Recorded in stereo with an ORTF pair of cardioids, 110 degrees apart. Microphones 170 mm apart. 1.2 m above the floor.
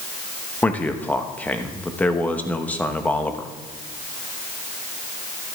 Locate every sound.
0.6 s a man speaking: 10° left, 1.1 m